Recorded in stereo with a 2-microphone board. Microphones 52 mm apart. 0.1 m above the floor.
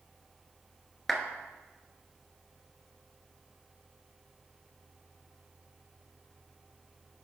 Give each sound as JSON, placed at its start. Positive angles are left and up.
{"t": 1.1, "sound": "a clap", "side_deg": 5, "distance_m": 1.0}